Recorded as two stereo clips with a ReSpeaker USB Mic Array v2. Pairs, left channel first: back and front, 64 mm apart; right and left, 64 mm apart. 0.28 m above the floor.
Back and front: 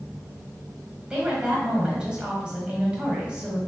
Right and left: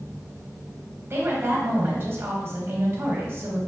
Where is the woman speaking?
65° left, 1.4 m.